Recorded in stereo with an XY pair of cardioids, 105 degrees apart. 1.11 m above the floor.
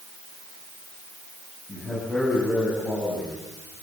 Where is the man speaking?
30° left, 10 m.